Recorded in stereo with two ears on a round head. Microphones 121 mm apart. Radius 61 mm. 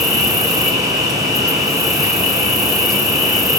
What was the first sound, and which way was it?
An insect, 25° right (ahead or behind).